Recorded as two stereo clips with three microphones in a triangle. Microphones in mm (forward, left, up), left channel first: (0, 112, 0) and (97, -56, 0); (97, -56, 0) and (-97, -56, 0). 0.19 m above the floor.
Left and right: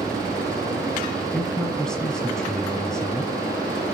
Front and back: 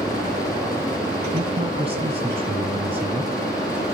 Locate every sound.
1.3 s a man speaking: 155° right, 1.4 m